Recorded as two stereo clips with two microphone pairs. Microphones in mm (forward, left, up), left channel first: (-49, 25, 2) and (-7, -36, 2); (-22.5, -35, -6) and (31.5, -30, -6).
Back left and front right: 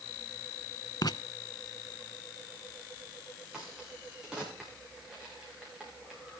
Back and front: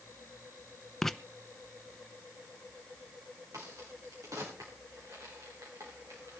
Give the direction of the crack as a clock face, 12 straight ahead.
11 o'clock.